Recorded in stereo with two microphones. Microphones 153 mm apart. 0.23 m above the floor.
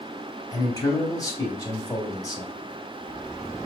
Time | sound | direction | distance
0.5 | a man speaking | 25° left (ahead or behind) | 1.0 m